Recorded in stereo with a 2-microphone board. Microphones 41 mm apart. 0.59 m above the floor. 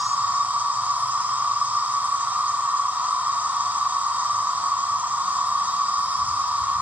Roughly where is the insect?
Right.